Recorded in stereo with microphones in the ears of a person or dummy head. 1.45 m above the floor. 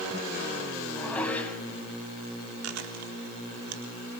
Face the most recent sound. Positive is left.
turn(degrees=-80)